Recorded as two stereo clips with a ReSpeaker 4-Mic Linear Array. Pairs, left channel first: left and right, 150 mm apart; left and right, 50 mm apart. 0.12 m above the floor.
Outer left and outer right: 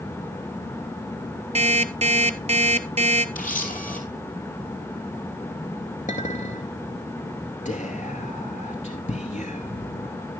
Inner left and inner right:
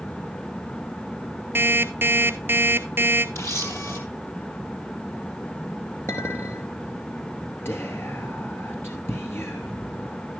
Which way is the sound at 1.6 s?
45° right (ahead or behind).